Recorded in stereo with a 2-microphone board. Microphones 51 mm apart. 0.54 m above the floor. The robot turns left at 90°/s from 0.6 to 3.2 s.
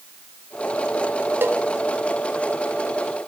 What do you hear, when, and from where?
1.4 s a cowbell: 45° right (ahead or behind), 1.1 m; by 1.6 s 65° right (ahead or behind), 1.1 m